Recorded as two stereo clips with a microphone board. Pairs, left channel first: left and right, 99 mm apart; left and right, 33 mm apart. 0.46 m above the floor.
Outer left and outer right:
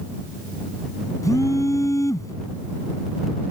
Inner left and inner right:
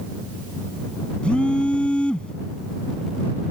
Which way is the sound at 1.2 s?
35° left (ahead or behind).